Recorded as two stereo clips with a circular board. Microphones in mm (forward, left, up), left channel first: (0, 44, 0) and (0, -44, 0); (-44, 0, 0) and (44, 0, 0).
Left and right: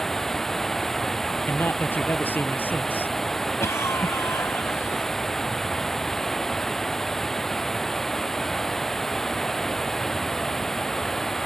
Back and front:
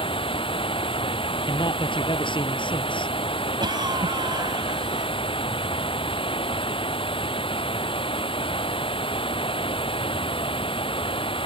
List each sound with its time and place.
0.0 s running water: 175° left
1.5 s a man speaking: 160° left
3.6 s a cough: 35° left